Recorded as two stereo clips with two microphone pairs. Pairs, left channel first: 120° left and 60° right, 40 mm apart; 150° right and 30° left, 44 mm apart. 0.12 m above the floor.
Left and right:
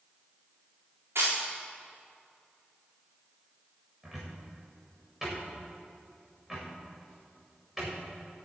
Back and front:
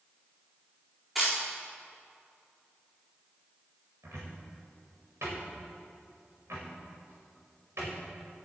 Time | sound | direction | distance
1.1 | a camera shutter | 55° right | 4 m
4.0 | a cupboard door | 15° left | 5 m